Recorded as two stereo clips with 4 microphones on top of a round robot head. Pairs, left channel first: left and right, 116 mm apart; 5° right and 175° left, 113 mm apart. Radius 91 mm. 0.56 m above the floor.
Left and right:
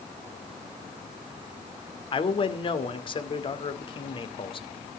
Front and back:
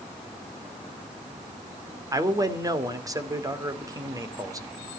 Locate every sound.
2.1 s a man speaking: 120° left, 2 m